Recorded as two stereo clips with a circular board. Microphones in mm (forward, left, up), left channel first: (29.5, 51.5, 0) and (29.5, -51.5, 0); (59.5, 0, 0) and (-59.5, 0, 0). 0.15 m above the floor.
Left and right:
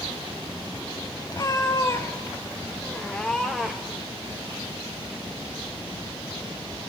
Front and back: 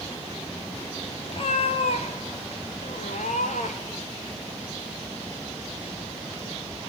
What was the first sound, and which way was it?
A cat meowing, 35° left.